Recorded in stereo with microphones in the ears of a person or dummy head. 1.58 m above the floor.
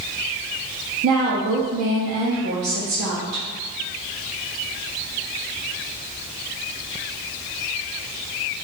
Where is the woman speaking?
70° right (ahead or behind), 0.6 m.